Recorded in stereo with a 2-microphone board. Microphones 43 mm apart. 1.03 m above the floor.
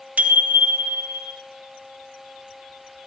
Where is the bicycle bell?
45° right (ahead or behind), 3 m; by 1.3 s 55° right (ahead or behind), 3.5 m.